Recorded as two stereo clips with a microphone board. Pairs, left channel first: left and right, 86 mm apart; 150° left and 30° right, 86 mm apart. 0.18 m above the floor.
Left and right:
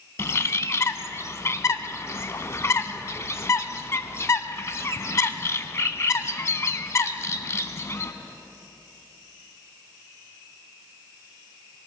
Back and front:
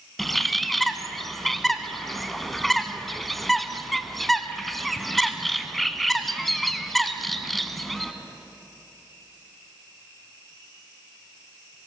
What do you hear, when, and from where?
0.2 s a bird: 65° left, 0.6 m